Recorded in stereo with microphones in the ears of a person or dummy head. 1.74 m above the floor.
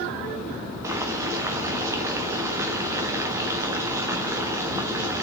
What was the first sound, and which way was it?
Boiling, 15° right (ahead or behind).